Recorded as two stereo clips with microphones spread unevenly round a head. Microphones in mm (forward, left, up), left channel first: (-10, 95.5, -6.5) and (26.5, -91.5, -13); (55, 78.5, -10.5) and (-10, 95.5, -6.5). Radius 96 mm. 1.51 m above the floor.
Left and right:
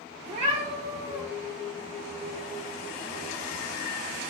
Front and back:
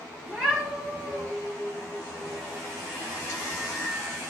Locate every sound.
0.3 s a cat meowing: 90° right, 1.2 m